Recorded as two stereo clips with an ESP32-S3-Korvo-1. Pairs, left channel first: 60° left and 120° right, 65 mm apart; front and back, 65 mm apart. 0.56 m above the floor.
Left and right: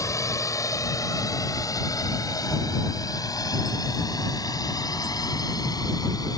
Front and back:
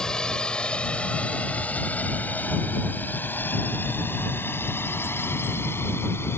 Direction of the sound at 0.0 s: 75° left.